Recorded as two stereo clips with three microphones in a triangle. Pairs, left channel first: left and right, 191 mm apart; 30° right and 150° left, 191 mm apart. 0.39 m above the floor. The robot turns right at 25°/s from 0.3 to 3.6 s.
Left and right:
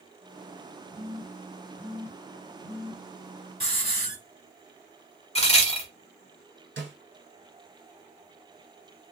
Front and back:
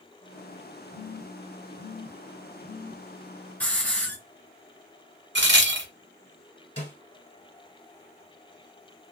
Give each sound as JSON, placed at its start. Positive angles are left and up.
{"t": 0.9, "sound": "a phone buzzing", "azimuth_deg": -140, "distance_m": 1.3}
{"t": 3.6, "sound": "a hiss", "azimuth_deg": 45, "distance_m": 1.2}
{"t": 5.3, "sound": "a crack", "azimuth_deg": 145, "distance_m": 0.8}
{"t": 6.8, "sound": "a snare drum", "azimuth_deg": -85, "distance_m": 1.4}